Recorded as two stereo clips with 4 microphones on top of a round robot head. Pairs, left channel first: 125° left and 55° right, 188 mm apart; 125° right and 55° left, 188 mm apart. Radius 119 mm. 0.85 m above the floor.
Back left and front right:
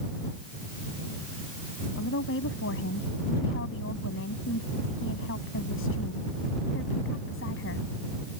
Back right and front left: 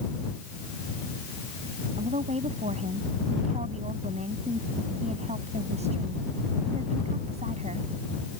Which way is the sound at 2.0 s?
110° left.